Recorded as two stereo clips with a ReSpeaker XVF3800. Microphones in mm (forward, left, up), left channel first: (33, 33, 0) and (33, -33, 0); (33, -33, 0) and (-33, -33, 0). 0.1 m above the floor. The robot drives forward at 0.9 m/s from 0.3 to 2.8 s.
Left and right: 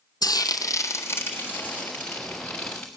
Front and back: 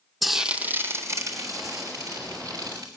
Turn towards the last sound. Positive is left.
turn(degrees=165)